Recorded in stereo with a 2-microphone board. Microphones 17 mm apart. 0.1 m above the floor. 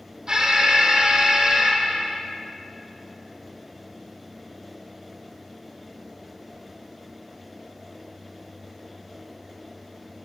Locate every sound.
0.3 s an alarm: 40° right (ahead or behind), 3.5 m